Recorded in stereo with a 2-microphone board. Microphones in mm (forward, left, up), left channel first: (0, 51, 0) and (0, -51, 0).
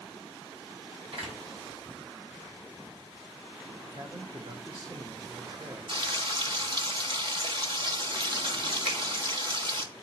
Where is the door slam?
70° right (ahead or behind), 4.5 m.